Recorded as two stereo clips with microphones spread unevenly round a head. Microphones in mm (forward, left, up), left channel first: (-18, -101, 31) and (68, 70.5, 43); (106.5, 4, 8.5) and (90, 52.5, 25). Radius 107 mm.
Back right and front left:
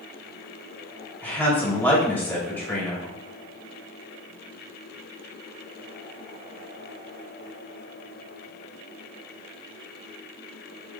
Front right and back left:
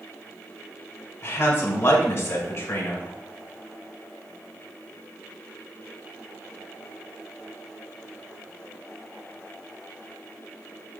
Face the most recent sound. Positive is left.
turn(degrees=-35)